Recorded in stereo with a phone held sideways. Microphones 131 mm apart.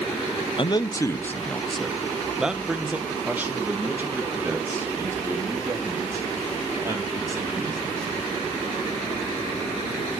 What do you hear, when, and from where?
0.6 s a man speaking: 40° left (ahead or behind), 0.7 m; by 8.1 s 25° right (ahead or behind), 5 m